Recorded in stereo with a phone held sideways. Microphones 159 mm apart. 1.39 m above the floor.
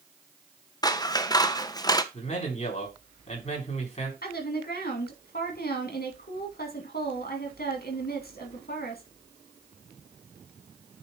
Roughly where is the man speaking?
Left.